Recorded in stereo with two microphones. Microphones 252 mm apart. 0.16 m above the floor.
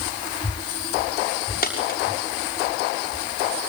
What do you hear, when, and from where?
1.6 s a dropped coin: 35° left (ahead or behind), 6.5 m